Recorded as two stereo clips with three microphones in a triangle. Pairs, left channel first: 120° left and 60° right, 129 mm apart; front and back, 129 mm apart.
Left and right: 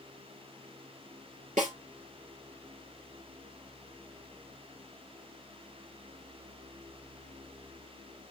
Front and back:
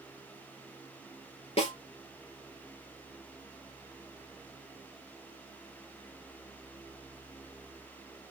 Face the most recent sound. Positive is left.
turn(degrees=-40)